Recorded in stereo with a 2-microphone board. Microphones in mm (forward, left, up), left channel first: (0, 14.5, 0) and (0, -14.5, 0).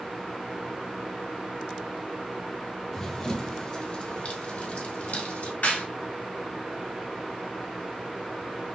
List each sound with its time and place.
2.9 s running footsteps: 15° left (ahead or behind), 1.4 m; by 5.5 s 65° left (ahead or behind), 1.9 m
5.6 s a clap: 80° left, 3 m